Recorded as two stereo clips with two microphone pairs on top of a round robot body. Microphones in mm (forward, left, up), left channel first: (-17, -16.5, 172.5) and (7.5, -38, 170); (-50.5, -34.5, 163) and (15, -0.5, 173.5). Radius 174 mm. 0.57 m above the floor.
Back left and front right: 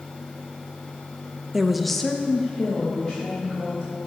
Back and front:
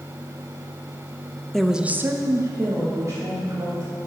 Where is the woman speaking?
95° right, 0.6 m; by 3.9 s 75° left, 2 m.